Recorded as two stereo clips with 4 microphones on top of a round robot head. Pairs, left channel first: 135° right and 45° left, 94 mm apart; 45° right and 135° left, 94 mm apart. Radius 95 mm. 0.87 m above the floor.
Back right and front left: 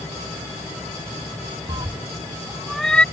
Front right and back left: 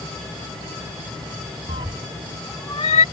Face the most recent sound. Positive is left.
turn(degrees=-60)